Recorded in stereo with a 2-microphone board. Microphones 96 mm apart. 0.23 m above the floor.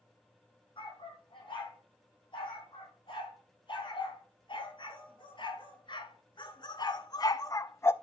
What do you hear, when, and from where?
0.8 s a dog barking: 65° left (ahead or behind), 4.5 m; by 7.9 s 25° left (ahead or behind), 0.5 m